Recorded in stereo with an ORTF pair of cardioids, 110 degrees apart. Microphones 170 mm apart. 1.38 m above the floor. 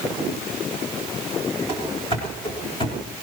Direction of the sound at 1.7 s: 30° left.